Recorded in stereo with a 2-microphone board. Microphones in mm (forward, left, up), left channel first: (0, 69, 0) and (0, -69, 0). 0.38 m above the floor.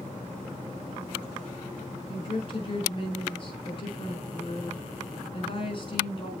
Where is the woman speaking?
40° left (ahead or behind), 4.5 m.